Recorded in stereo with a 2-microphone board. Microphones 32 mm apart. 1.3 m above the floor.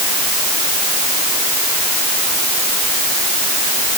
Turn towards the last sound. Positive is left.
No sound to turn to.